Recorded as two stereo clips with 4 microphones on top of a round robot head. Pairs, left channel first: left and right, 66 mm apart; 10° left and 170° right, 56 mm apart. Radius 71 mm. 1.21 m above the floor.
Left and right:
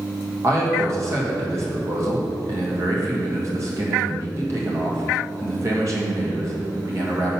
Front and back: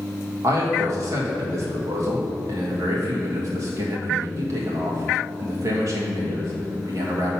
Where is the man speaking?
135° right, 1.6 m.